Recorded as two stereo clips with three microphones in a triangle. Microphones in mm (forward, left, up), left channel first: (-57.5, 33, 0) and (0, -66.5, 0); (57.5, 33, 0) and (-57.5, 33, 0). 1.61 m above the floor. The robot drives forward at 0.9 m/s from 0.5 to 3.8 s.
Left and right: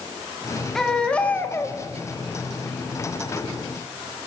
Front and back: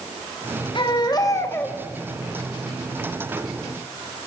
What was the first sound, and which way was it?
A baby crying, 35° left.